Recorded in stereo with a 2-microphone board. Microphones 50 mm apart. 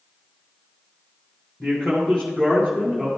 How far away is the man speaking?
About 1.6 m.